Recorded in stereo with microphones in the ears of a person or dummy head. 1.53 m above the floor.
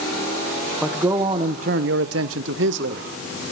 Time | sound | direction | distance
0.8 | a man speaking | 5° right (ahead or behind) | 1.8 m